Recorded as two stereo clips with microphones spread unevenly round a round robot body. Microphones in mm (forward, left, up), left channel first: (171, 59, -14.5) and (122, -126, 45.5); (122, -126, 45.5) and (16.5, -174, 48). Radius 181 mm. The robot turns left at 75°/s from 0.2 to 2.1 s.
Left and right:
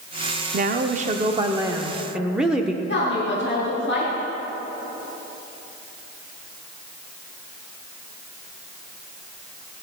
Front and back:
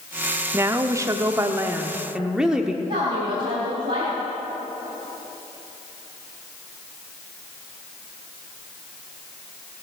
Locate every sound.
0.5 s a woman speaking: 115° right, 0.7 m; by 2.8 s 125° left, 0.7 m
2.9 s a woman speaking: 140° left, 3.5 m